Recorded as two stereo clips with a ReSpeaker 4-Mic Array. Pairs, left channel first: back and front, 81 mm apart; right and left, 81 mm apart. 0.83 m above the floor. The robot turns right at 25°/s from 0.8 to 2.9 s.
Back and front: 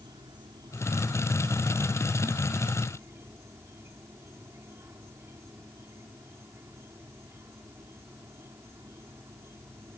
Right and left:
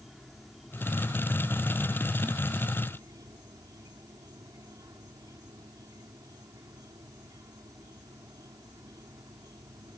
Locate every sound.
0.0 s an insect: straight ahead; by 10.0 s 55° left